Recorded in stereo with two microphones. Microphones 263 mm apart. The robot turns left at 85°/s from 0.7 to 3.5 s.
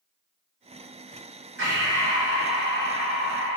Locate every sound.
1.6 s breathing: 55° left, 1.7 m; by 3.6 s 110° right, 1.7 m